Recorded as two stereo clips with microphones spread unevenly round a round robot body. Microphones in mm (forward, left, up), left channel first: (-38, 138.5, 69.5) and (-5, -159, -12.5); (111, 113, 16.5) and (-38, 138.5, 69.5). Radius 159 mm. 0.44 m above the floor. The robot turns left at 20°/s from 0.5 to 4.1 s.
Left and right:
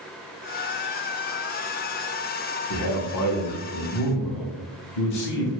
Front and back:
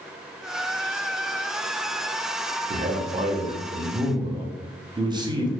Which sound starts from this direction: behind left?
A man speaking, at 2.7 s.